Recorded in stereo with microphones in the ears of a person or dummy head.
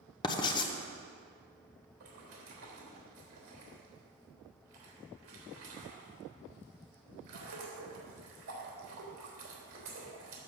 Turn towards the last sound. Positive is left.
turn(degrees=-45)  # may be behind; listen again after turning